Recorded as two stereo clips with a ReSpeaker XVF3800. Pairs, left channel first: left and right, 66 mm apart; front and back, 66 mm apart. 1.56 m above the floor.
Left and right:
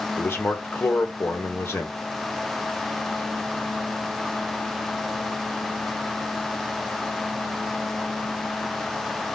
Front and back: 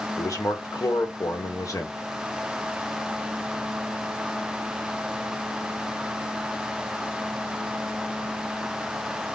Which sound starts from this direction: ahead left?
A man speaking, at 0.2 s.